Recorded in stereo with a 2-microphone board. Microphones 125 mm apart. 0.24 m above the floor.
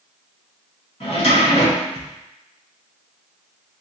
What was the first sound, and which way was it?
A drawer, 50° left (ahead or behind).